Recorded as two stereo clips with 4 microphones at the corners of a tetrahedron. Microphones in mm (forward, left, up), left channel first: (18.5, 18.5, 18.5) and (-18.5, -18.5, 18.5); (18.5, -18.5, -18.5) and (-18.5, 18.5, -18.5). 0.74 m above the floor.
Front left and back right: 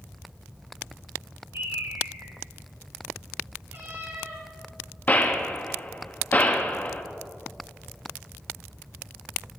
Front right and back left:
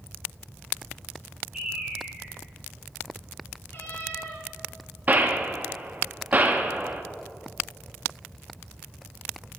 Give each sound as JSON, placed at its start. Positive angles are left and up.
{"t": 1.5, "sound": "a bird", "azimuth_deg": -145, "distance_m": 3.5}
{"t": 3.7, "sound": "a cat meowing", "azimuth_deg": -95, "distance_m": 4.0}
{"t": 5.1, "sound": "a gunshot", "azimuth_deg": 95, "distance_m": 0.9}